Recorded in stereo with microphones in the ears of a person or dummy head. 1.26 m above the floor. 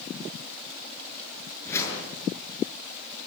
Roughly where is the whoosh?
Centre.